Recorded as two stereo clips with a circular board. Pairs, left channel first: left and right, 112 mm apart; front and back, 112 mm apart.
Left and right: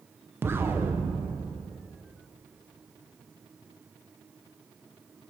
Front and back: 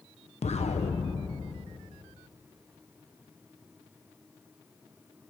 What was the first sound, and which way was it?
An explosion, 20° right.